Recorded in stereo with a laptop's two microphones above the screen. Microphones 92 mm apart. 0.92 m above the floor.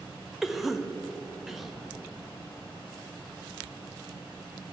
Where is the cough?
5° right (ahead or behind), 0.8 m.